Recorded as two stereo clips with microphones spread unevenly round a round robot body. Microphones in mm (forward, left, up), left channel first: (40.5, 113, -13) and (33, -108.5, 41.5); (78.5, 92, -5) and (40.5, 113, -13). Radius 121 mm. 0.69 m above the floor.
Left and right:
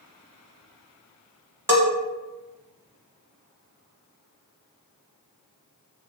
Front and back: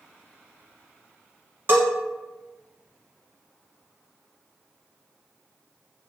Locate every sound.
1.7 s a bell: 165° right, 0.8 m